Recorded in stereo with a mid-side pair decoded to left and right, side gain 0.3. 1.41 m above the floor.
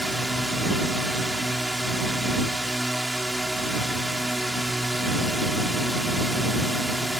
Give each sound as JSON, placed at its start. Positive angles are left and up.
{"t": 0.0, "sound": "a drone", "azimuth_deg": -10}